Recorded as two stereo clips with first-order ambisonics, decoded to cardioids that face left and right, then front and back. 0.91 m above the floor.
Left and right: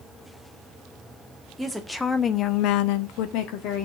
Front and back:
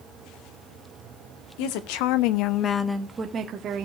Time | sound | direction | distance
1.6 | a woman speaking | 5° right | 1.7 m